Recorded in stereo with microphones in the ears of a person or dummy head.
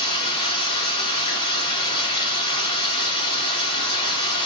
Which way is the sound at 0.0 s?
40° left (ahead or behind).